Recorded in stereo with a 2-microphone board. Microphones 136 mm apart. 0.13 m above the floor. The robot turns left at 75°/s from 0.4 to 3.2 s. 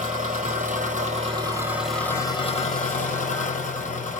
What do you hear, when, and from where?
0.0 s an engine running: 70° right, 1.4 m; by 4.2 s 80° left, 1.4 m